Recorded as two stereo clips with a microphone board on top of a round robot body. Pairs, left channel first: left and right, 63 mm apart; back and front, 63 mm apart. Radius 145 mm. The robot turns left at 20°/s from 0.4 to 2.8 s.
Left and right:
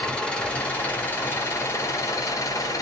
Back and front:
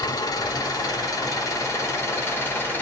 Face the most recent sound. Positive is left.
turn(degrees=120)